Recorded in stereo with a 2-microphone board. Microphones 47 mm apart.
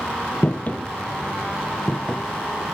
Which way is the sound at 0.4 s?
45° left (ahead or behind).